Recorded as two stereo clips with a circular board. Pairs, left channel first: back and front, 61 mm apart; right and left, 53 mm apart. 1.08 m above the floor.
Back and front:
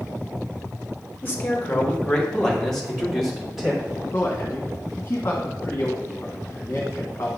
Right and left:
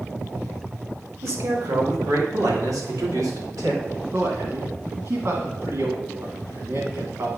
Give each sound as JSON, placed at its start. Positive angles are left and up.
{"t": 1.2, "sound": "a man speaking", "azimuth_deg": 120, "distance_m": 2.0}
{"t": 4.1, "sound": "a man speaking", "azimuth_deg": 130, "distance_m": 1.8}